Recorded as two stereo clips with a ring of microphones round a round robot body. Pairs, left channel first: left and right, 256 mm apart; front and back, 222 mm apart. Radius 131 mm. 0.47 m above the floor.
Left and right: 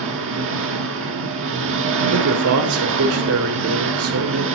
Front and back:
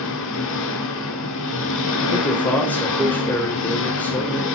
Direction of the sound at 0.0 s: 45° right.